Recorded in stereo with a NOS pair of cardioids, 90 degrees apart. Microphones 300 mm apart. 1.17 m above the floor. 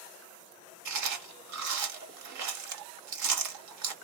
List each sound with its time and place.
0.8 s chewing: 70° right, 1.3 m